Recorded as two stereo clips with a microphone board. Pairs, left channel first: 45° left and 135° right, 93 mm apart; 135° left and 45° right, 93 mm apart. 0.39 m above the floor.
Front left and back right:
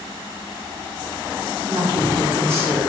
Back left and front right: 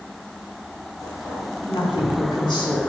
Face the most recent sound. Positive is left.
turn(degrees=165)